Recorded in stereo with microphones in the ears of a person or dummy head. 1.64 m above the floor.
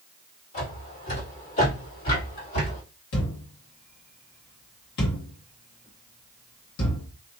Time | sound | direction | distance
0.5 | footsteps | 30° left (ahead or behind) | 2.0 m
3.1 | a thud | 55° left (ahead or behind) | 1.5 m